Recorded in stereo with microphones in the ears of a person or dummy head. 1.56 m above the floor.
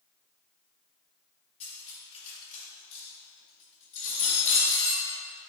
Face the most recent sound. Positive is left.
turn(degrees=35)  # may be behind; listen again after turning